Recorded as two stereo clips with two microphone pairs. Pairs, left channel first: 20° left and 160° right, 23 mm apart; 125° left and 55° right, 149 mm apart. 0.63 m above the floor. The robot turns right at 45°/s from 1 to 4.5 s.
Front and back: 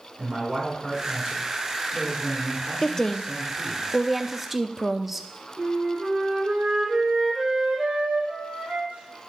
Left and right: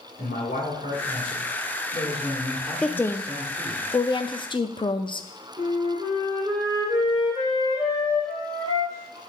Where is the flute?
125° right, 3 m.